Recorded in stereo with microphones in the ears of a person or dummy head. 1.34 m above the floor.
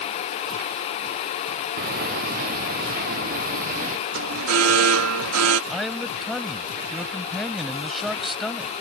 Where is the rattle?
I don't hear a rattle.